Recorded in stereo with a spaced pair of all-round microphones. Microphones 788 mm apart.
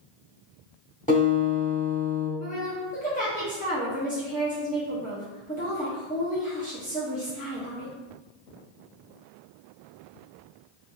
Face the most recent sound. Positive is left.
turn(degrees=10)  # may be behind; listen again after turning